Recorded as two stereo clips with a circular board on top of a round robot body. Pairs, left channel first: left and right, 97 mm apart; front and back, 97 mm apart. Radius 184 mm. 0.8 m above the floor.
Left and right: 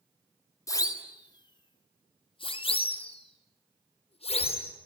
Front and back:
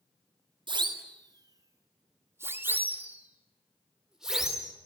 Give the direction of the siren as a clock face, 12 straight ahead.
7 o'clock.